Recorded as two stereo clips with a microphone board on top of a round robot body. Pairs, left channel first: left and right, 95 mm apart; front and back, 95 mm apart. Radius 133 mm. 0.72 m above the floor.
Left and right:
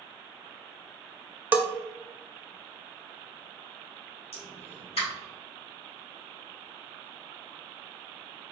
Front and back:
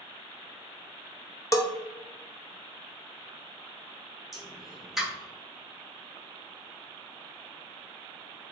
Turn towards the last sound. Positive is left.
turn(degrees=95)